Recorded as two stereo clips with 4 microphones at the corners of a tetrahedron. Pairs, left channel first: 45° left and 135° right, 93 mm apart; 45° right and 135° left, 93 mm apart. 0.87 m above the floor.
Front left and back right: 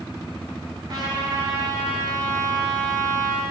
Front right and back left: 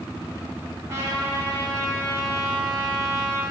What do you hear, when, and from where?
0.9 s a trumpet: 175° right, 2.5 m